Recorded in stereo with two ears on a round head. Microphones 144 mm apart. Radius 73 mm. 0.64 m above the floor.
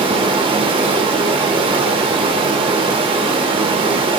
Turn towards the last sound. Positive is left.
turn(degrees=-30)  # may be behind; listen again after turning